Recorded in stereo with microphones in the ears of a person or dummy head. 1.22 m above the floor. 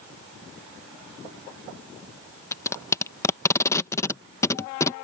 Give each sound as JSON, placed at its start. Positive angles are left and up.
{"t": 2.5, "sound": "tape being pulled", "side_deg": 15}